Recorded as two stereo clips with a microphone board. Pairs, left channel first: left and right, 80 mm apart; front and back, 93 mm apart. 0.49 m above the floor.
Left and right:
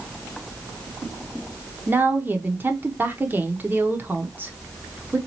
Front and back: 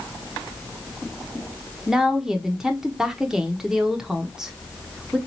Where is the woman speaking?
105° right, 0.7 m.